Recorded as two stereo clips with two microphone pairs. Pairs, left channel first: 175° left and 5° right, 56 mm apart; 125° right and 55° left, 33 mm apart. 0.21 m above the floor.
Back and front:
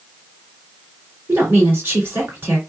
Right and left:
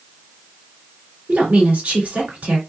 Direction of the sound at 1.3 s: 35° left.